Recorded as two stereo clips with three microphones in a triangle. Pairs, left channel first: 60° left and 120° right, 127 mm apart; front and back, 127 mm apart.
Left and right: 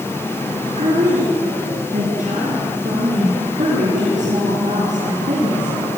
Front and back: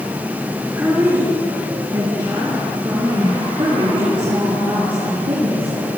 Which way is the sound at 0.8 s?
110° right.